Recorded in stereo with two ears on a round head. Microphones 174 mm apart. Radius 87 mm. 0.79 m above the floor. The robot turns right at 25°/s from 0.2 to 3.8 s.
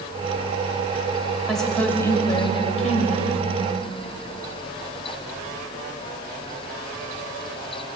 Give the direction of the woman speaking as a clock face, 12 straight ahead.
12 o'clock.